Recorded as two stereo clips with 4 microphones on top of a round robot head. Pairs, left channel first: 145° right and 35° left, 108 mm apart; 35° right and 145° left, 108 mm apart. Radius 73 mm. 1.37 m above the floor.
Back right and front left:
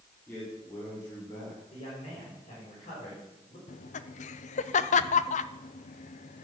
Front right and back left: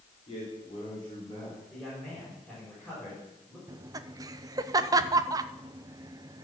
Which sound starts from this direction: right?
A man speaking, at 0.3 s.